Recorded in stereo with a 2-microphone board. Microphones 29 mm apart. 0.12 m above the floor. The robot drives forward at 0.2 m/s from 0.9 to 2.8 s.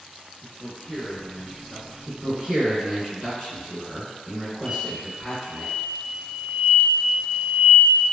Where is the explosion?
5° left (ahead or behind), 1.3 m.